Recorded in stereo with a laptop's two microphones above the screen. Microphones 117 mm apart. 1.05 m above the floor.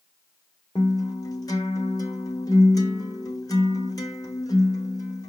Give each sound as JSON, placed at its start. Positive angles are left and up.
{"t": 0.8, "sound": "a guitar", "side_deg": 30, "distance_m": 1.2}